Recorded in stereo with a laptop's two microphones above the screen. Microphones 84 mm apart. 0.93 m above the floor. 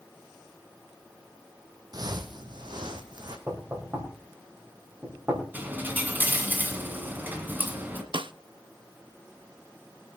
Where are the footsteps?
50° right (ahead or behind), 1.5 m; by 3.4 s 55° right (ahead or behind), 2 m.